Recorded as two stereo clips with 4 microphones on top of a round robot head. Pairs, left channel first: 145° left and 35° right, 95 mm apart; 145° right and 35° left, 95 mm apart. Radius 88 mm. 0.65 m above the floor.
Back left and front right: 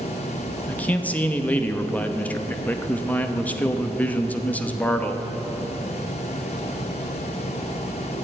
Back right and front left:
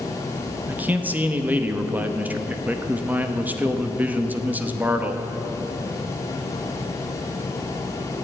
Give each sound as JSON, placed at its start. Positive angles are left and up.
{"t": 0.7, "sound": "a man speaking", "azimuth_deg": 90, "distance_m": 1.1}